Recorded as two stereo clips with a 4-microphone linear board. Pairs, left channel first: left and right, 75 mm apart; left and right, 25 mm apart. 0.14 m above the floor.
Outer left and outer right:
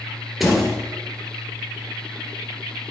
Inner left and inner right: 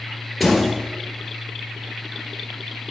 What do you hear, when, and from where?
0.4 s a door slam: centre (ahead or behind), 2 m